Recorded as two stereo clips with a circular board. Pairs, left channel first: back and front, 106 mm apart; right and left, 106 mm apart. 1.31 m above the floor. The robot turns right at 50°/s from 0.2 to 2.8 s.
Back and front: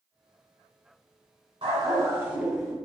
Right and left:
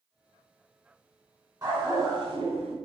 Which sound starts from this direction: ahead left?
A dog barking, at 1.6 s.